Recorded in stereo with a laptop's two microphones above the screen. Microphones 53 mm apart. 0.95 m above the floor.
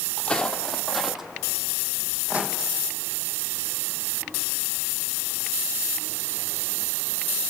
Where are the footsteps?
20° left (ahead or behind), 1.6 m; by 2.5 s 30° right (ahead or behind), 2.5 m.